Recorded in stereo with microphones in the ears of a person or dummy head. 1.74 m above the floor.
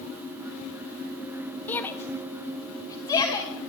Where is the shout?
15° left (ahead or behind), 0.9 m; by 3.5 s 25° left (ahead or behind), 3 m.